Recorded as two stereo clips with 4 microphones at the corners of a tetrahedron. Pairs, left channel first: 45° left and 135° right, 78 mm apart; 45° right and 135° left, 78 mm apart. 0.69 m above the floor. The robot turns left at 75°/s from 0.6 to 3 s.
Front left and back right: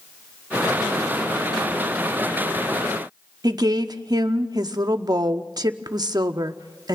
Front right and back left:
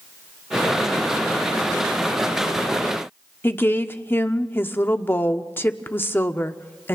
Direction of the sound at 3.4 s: 105° right.